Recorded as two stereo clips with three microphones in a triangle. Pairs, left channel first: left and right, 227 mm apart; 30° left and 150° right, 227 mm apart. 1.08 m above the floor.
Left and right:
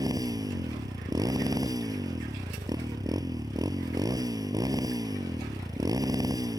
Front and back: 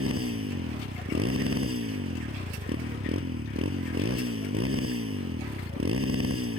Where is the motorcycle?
165° right.